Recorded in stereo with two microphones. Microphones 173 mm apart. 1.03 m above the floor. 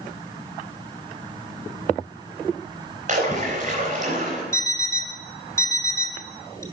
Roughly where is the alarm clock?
Centre.